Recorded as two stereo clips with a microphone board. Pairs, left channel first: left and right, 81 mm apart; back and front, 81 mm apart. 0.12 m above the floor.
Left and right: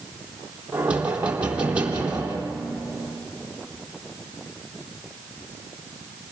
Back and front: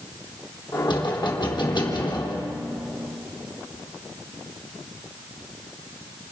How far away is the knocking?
About 3.5 m.